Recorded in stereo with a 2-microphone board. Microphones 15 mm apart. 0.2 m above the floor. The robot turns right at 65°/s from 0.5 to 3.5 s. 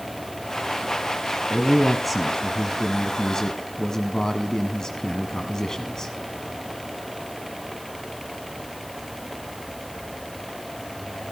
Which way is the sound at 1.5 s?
40° right.